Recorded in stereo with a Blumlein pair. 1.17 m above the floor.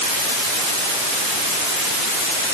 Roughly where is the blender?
No blender in this recording.